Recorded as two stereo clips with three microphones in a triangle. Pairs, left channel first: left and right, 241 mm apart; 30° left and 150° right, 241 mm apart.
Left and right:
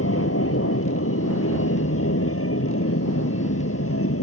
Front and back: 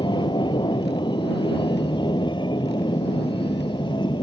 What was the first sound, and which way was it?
An aircraft, 100° left.